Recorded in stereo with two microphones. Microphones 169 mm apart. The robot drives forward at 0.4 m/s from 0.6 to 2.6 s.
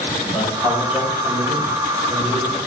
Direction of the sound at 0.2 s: 5° right (ahead or behind).